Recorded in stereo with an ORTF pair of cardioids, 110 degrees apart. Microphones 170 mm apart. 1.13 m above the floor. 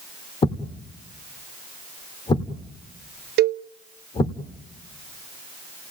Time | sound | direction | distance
0.4 | a thud | 30° left | 1.7 m
3.4 | a cowbell | 70° right | 0.7 m